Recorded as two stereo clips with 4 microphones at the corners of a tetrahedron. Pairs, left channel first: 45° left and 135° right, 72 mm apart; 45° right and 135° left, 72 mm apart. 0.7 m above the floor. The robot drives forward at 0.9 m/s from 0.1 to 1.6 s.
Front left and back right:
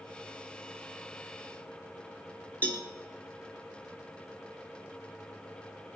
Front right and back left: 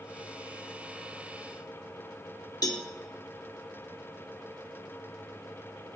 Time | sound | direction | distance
2.6 | a cowbell | 20° right | 1.9 m